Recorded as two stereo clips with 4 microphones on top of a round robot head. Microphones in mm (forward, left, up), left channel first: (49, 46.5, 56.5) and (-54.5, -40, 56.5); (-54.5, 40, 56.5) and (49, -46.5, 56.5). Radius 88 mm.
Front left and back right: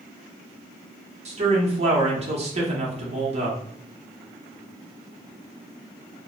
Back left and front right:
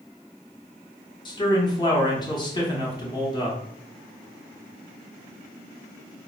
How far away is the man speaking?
About 0.9 m.